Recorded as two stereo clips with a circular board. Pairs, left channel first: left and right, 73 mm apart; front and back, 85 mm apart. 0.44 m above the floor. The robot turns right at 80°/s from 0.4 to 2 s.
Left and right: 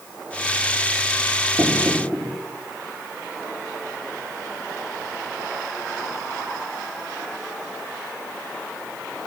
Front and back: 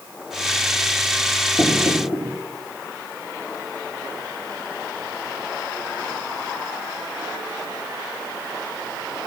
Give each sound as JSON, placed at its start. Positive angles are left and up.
{"t": 1.6, "sound": "knocking", "azimuth_deg": -55, "distance_m": 4.5}